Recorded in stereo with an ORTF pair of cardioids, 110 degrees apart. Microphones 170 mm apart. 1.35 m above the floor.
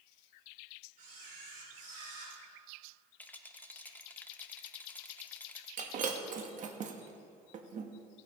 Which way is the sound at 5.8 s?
50° right.